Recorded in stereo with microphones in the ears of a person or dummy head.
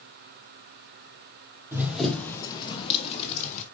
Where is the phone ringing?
I don't hear a phone ringing.